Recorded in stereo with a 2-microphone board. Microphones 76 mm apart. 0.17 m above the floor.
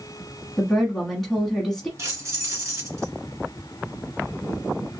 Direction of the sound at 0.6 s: 5° left (ahead or behind).